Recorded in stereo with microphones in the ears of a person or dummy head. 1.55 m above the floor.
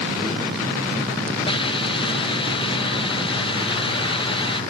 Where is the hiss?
30° left (ahead or behind).